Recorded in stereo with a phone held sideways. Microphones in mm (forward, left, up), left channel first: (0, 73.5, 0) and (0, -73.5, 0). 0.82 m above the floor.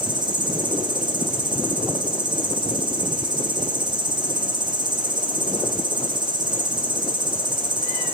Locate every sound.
0.0 s an insect: 30° right (ahead or behind), 1.3 m